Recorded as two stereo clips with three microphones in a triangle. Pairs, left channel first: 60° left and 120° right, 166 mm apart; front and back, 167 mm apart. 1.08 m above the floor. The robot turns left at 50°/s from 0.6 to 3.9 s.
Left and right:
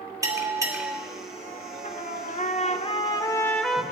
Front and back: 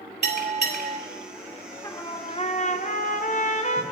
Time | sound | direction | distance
0.2 | a bell | 170° left | 2.5 m
1.8 | a trumpet | 65° left | 0.9 m